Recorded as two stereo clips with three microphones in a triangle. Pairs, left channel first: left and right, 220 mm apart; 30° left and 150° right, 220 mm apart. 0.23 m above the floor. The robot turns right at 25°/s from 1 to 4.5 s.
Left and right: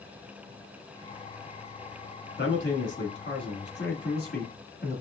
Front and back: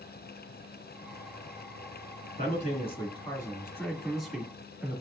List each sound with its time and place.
2.4 s a man speaking: 75° left, 2 m; by 5.0 s 130° left, 2 m